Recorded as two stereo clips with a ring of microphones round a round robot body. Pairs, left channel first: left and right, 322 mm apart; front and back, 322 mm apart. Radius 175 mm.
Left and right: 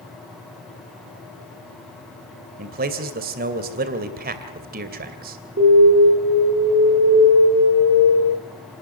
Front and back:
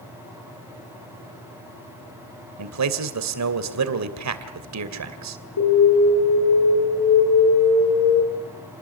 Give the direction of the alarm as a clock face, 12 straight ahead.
1 o'clock.